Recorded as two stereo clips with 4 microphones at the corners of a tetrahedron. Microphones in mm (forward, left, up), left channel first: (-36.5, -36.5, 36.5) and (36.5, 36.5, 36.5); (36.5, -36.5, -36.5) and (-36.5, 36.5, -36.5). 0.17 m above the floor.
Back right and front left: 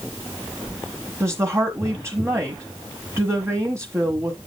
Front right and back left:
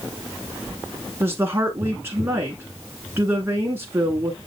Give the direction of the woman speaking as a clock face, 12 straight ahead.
9 o'clock.